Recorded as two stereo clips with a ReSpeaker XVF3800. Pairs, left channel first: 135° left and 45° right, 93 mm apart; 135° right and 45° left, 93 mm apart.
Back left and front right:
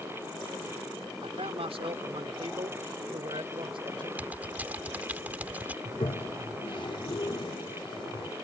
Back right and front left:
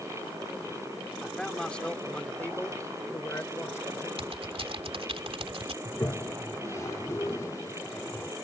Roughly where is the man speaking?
Ahead right.